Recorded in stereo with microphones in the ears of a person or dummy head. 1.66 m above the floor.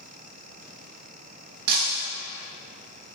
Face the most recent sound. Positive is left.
turn(degrees=-55)  # may be behind; listen again after turning